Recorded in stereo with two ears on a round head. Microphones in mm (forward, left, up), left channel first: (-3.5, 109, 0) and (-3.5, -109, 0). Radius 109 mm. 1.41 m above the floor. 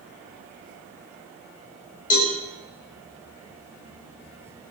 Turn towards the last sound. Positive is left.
turn(degrees=35)  # may be behind; listen again after turning